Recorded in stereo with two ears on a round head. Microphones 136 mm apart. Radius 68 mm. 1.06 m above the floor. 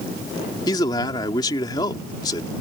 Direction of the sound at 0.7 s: 30° left (ahead or behind).